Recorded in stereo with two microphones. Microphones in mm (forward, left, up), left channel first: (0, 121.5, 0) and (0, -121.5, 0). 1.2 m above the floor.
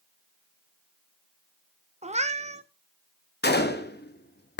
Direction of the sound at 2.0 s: 25° right (ahead or behind).